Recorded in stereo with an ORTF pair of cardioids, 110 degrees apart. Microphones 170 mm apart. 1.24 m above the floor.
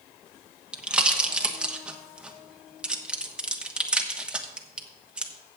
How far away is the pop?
About 1.2 m.